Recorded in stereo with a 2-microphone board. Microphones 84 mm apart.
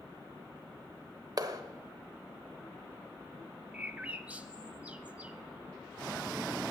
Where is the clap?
50° right (ahead or behind), 1.0 m.